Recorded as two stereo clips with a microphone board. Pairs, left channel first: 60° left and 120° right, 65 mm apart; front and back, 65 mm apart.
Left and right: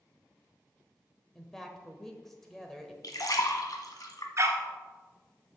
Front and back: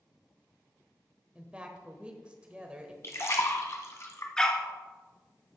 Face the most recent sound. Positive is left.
turn(degrees=-75)